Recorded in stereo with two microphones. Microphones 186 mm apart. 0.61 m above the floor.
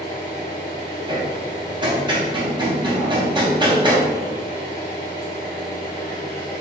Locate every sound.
0.0 s an engine running: 45° left (ahead or behind), 1.2 m
1.1 s hammering: 25° right (ahead or behind), 0.6 m